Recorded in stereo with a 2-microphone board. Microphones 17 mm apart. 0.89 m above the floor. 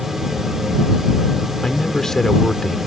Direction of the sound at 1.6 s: 35° left (ahead or behind).